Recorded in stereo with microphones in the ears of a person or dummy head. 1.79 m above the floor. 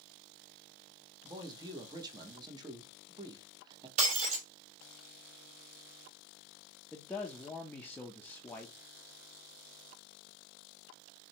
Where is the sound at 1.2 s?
20° right (ahead or behind), 0.9 m.